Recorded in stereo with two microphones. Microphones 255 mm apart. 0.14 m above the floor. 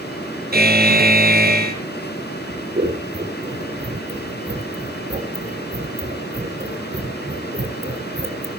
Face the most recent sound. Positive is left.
turn(degrees=-35)  # may be behind; listen again after turning